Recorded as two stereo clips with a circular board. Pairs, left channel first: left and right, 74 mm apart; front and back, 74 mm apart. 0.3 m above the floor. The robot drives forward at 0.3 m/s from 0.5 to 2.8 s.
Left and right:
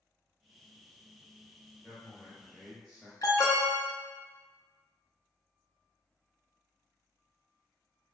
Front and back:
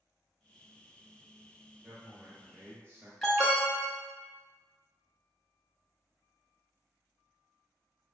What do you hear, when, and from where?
1.8 s a man speaking: 170° left, 1.2 m; by 3.1 s 175° left, 1.3 m
3.2 s an alarm: 80° left, 1.0 m